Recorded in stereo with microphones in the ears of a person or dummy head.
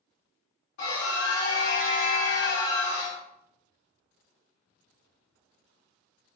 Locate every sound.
0.8 s a scream: 55° left (ahead or behind), 1.1 m